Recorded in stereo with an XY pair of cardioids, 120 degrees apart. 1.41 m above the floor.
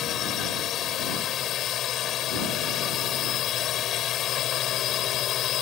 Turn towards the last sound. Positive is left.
turn(degrees=60)